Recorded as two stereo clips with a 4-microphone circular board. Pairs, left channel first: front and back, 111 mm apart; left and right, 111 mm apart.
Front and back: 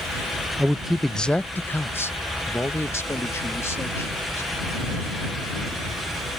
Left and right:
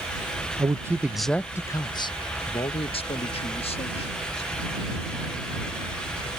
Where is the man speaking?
105° right; by 4.5 s 65° left.